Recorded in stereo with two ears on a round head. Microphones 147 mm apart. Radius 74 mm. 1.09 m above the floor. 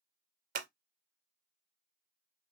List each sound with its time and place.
0.6 s scissors: 55° right (ahead or behind), 0.6 m